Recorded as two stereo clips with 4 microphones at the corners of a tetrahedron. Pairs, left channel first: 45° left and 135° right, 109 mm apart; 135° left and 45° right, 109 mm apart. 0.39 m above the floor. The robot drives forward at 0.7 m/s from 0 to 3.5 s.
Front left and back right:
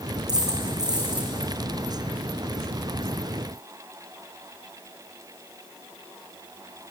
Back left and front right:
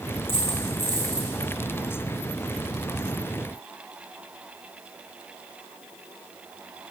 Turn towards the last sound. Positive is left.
turn(degrees=175)